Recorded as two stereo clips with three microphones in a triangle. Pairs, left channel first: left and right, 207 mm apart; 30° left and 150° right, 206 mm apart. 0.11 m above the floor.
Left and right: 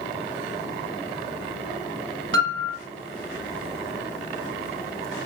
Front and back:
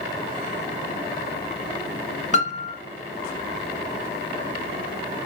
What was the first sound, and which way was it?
A piano, 95° right.